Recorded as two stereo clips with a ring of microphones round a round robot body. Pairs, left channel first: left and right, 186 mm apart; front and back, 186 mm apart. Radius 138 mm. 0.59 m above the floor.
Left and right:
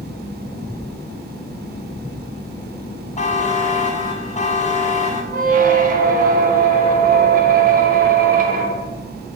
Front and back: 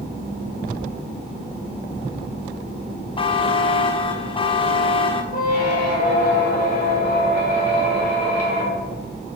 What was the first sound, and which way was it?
A buzzer, 55° left.